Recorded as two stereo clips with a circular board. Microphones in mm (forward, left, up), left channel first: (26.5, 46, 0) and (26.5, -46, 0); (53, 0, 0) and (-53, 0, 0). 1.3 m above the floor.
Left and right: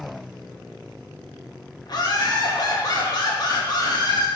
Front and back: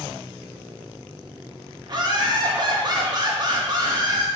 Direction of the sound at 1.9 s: 130° left.